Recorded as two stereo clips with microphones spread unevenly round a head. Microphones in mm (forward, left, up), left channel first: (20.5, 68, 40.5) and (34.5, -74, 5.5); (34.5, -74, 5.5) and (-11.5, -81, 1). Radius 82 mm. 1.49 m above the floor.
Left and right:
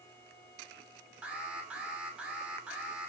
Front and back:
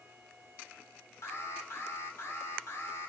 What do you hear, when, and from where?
1.2 s an alarm: 5° right, 5.5 m